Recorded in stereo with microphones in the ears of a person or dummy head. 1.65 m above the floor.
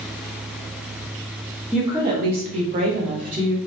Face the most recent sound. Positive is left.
turn(degrees=-45)  # may be behind; listen again after turning